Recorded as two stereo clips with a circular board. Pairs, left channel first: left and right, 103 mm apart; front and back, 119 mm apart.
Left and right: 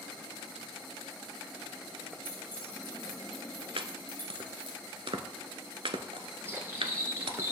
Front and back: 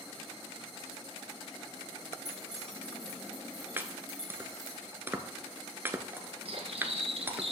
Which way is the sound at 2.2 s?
20° right.